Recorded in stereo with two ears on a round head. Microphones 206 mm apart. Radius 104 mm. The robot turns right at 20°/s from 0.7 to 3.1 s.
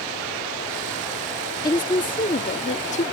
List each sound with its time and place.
1.6 s a woman speaking: 15° left (ahead or behind); by 3.0 s 30° left (ahead or behind)